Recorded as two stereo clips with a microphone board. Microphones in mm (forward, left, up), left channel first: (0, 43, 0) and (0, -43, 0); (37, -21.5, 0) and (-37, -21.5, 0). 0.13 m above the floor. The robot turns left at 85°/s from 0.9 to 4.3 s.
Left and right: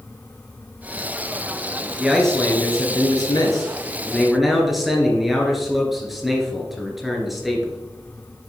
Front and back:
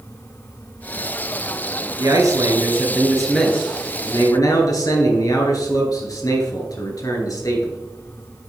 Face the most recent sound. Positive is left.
turn(degrees=0)